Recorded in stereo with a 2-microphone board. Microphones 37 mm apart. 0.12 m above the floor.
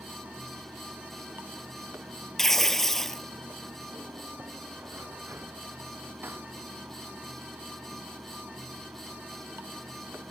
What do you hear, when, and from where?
0.0 s running water: 75° right (ahead or behind)
2.4 s tearing paper: 10° left (ahead or behind)